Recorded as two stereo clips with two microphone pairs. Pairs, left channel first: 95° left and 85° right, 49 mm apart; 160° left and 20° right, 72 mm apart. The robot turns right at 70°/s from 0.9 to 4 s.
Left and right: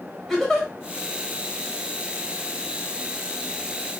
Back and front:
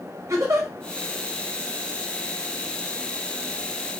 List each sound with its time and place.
0.3 s a giggle: 15° left, 1.1 m